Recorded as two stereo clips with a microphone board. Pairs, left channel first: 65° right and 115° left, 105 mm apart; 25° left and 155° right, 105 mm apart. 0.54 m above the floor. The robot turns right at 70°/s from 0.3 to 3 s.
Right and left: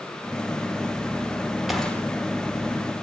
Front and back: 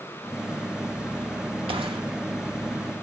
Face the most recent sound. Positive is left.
turn(degrees=-70)